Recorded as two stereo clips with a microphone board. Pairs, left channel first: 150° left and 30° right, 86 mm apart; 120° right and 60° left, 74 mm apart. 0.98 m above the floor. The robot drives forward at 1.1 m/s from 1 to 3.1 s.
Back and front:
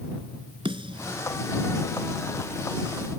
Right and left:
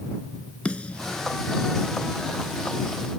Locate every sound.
0.7 s a snare drum: 45° right; by 1.2 s 50° right